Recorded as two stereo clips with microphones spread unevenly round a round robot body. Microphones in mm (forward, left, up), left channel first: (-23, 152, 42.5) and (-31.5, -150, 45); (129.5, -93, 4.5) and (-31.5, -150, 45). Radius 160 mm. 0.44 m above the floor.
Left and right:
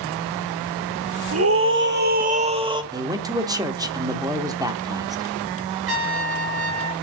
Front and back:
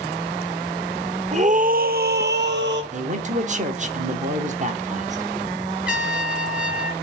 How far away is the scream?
About 1.3 m.